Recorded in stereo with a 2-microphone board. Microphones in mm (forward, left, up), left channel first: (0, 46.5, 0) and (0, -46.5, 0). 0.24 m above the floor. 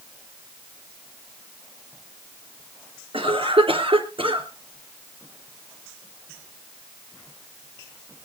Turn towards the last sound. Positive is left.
turn(degrees=-70)  # may be behind; listen again after turning